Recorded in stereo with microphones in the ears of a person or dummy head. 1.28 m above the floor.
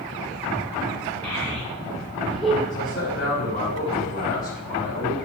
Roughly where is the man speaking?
Left.